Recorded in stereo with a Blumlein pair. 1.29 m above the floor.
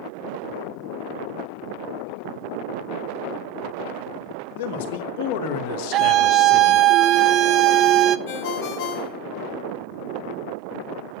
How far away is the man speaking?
About 2.5 m.